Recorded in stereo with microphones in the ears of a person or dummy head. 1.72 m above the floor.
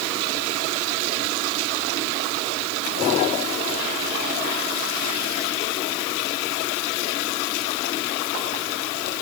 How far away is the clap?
No clap in this recording.